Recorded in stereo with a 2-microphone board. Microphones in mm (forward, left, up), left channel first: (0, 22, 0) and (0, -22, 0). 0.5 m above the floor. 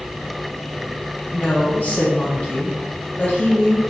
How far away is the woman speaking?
About 1.0 m.